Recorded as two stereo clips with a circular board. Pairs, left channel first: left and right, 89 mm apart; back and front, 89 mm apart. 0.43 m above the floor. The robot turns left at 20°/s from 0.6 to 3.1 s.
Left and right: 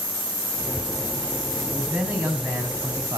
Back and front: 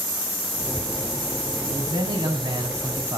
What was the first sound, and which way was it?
A man speaking, 10° right.